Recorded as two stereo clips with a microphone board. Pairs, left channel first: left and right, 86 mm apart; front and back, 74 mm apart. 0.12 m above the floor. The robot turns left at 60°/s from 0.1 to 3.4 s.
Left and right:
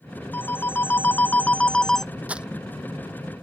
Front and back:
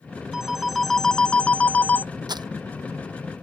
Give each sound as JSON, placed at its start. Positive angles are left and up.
{"t": 0.3, "sound": "a phone ringing", "azimuth_deg": 115}
{"t": 2.3, "sound": "crumpling", "azimuth_deg": -165}